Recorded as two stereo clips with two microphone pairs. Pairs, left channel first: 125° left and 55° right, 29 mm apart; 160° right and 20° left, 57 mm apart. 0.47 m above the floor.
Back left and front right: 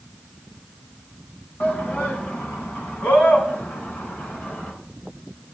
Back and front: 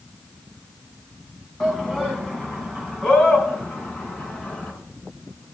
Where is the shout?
120° left, 3.5 m; by 4.7 s 135° left, 4.5 m.